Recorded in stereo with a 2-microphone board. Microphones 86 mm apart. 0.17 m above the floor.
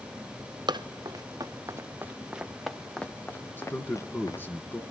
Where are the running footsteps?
60° right (ahead or behind), 1.4 m; by 4.5 s 40° left (ahead or behind), 1.6 m.